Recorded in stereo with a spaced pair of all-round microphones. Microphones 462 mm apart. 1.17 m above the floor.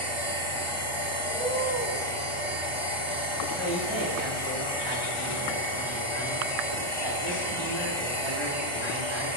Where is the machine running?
80° right, 3.5 m.